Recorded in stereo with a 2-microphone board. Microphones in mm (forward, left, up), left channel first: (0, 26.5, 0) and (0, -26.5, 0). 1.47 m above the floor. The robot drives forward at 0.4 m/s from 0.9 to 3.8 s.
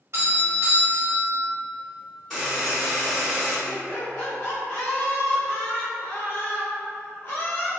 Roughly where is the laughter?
Left.